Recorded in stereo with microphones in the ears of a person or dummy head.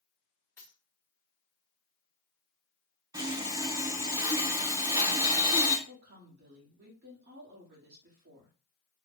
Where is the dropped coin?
10° left (ahead or behind), 0.8 m.